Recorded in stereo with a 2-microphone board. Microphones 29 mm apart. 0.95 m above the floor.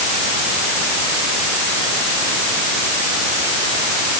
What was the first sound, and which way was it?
Only background noise.